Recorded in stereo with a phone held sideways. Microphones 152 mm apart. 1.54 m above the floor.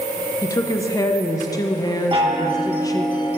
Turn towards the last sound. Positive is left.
turn(degrees=-35)  # may be behind; listen again after turning